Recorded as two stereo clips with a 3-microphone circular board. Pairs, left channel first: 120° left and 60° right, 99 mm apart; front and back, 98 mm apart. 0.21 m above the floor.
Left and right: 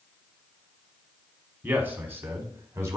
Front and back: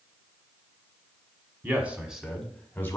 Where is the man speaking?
120° right, 1.5 m; by 3.0 s 35° right, 1.3 m.